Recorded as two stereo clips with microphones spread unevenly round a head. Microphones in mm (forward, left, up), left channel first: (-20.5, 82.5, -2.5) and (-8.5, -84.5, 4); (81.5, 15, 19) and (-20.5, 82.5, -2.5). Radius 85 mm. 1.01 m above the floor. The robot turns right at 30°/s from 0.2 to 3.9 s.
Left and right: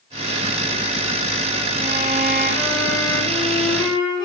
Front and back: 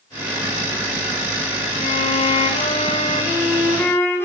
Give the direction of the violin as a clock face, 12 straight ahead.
1 o'clock.